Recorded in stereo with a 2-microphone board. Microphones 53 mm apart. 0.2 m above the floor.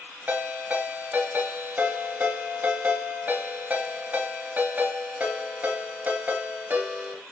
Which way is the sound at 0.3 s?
35° right (ahead or behind).